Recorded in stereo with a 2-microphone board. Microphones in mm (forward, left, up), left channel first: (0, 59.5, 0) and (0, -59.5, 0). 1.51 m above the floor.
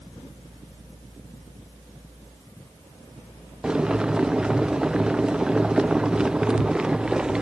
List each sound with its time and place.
3.6 s boiling: 5° right (ahead or behind)